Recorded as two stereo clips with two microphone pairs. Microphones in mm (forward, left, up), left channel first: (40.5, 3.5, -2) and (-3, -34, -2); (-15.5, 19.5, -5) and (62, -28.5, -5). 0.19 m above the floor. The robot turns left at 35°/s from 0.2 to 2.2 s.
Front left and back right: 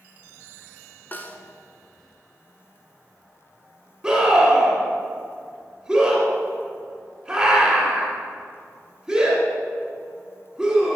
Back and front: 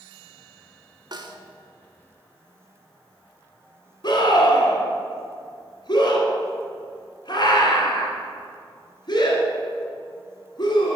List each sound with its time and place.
1.1 s a snare drum: 10° right, 0.7 m; by 1.4 s 20° right, 0.7 m
4.0 s a scream: 145° left, 1.9 m